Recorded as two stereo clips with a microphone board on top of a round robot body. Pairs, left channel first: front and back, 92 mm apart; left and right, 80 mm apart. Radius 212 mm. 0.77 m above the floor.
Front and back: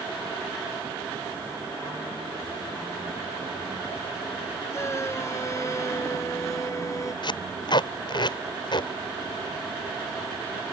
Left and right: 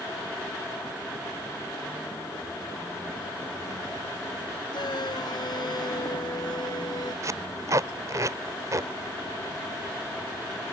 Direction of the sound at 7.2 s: 40° right.